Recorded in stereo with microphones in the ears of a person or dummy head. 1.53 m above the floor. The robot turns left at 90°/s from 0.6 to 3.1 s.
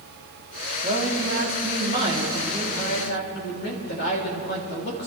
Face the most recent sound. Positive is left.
turn(degrees=125)